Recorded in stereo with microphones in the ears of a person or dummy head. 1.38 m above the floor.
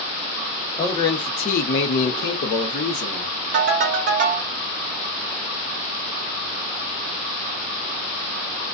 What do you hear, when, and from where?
0.8 s a man speaking: 15° left (ahead or behind), 0.9 m; by 3.3 s 55° left (ahead or behind), 1.2 m
3.5 s a ringtone: 45° right (ahead or behind), 0.8 m